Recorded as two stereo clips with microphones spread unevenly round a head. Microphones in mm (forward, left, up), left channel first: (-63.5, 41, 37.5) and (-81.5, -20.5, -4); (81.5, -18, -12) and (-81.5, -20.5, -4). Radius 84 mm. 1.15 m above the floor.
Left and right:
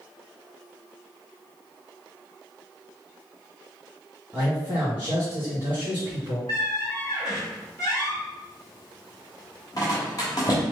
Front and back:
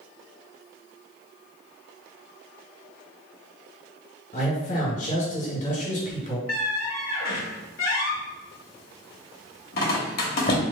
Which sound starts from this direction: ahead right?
A man speaking, at 4.3 s.